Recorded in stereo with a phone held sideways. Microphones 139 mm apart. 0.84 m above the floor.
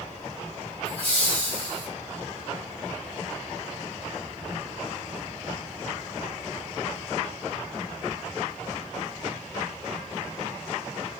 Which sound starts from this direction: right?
Laughter, at 0.8 s.